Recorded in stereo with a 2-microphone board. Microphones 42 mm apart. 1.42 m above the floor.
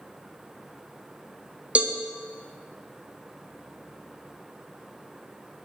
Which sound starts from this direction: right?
A cowbell, at 1.8 s.